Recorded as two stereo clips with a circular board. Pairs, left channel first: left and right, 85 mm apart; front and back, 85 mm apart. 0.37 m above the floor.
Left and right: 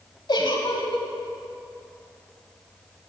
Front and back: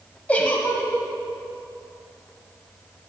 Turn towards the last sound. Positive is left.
turn(degrees=70)